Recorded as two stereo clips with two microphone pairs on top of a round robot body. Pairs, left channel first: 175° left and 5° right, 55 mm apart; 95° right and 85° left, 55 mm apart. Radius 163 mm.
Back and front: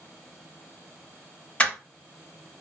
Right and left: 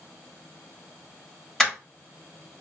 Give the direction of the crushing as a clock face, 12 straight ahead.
6 o'clock.